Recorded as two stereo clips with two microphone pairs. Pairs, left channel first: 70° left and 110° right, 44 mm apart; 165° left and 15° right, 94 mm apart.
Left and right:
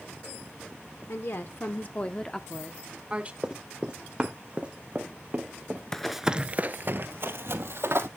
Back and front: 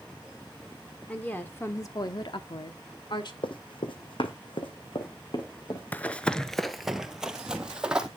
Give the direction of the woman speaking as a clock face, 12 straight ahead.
9 o'clock.